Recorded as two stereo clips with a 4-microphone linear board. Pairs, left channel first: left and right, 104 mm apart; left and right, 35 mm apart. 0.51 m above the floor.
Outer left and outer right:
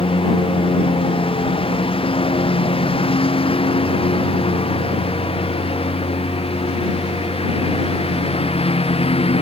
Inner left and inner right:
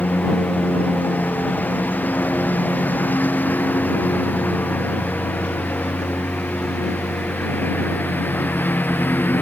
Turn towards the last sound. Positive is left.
turn(degrees=70)  # may be behind; listen again after turning